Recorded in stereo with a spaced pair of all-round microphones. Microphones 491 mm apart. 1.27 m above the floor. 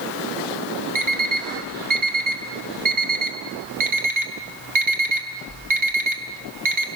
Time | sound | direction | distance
0.9 | an alarm clock | 75° right (ahead or behind) | 2 m